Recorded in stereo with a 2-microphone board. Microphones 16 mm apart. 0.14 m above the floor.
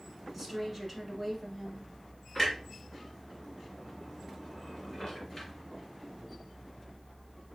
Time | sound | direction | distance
0.3 | a woman speaking | centre (ahead or behind) | 1.3 m
2.4 | a clunk | 30° left (ahead or behind) | 2.0 m